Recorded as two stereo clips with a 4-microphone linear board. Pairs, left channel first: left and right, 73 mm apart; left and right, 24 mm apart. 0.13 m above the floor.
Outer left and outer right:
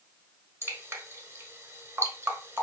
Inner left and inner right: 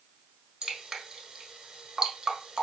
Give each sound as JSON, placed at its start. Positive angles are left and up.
{"t": 0.6, "sound": "dripping", "side_deg": -35, "distance_m": 1.1}